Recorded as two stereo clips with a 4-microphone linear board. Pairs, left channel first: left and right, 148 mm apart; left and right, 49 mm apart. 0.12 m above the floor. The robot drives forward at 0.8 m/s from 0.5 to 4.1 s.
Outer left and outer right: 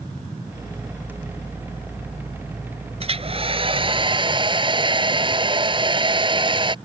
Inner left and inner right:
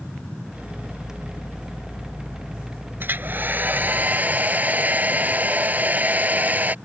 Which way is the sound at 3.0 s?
45° right (ahead or behind).